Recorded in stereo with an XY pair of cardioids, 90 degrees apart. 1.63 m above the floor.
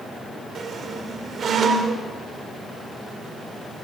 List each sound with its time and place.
0.6 s a squeak: 60° right, 4.5 m